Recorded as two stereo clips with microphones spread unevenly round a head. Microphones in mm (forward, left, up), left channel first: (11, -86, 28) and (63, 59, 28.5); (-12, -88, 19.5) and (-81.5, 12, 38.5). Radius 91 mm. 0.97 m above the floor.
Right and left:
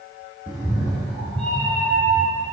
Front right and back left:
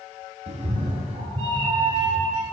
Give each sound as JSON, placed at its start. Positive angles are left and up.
{"t": 0.5, "sound": "a cat meowing", "azimuth_deg": 155, "distance_m": 3.0}